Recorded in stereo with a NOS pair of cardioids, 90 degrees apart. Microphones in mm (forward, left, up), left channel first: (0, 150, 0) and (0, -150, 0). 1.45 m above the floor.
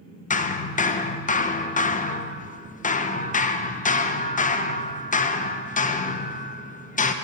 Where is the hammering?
25° left, 0.9 m.